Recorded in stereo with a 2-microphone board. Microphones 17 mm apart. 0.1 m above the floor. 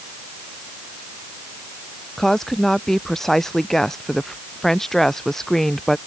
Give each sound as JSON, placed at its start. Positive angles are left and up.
{"t": 2.2, "sound": "a woman speaking", "side_deg": 25}